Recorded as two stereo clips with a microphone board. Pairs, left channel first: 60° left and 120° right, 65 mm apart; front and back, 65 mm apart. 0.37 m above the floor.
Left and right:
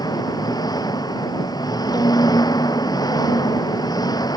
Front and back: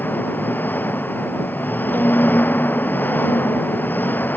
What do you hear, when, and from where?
0.0 s an engine running: 60° left
1.9 s a violin: 65° left